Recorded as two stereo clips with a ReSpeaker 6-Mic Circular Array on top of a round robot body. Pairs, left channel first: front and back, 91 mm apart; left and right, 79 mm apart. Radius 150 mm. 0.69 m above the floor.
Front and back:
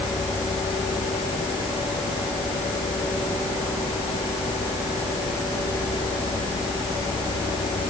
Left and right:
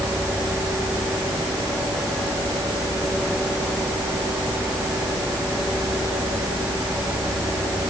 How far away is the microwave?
No microwave in this recording.